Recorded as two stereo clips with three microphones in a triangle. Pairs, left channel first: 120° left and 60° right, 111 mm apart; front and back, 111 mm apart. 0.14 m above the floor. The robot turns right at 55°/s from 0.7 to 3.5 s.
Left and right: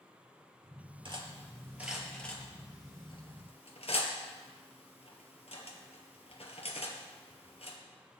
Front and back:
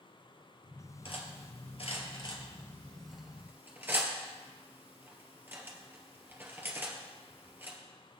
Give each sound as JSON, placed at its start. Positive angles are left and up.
{"t": 1.1, "sound": "cutlery clinking", "azimuth_deg": -25, "distance_m": 1.9}